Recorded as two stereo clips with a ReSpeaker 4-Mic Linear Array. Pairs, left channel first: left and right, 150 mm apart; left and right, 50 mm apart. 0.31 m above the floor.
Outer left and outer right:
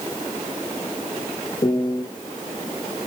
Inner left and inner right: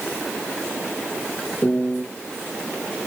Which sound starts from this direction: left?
A piano, at 1.6 s.